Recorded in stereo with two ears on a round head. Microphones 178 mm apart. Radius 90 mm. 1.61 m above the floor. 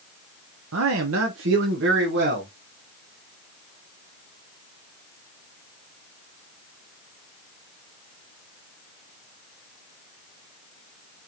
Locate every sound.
0.7 s a man speaking: 75° right (ahead or behind), 0.7 m; by 2.5 s 60° right (ahead or behind), 2 m